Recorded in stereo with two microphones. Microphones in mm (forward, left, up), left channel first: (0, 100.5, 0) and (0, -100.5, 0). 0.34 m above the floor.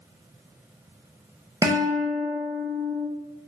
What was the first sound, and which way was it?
A guitar, 15° right (ahead or behind).